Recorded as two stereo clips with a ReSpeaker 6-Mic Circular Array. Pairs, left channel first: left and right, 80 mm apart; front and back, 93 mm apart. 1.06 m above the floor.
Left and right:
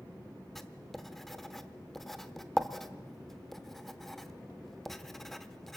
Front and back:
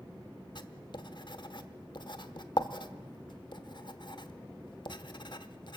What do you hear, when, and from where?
0.6 s writing: 5° left, 1.0 m